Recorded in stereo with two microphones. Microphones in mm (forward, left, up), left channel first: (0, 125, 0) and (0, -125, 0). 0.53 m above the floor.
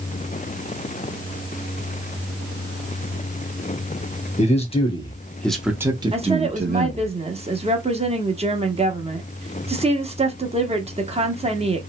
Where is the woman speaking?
25° right (ahead or behind), 0.8 m.